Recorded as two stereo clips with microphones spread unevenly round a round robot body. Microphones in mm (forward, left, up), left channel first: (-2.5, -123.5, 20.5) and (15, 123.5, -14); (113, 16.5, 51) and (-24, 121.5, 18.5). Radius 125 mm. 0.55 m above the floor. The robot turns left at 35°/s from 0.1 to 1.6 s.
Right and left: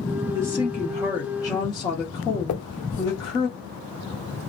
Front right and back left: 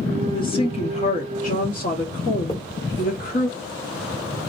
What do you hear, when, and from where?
0.3 s a woman speaking: 25° left, 1.2 m; by 3.5 s 20° right, 1.2 m
2.5 s a finger snap: 95° right, 1.2 m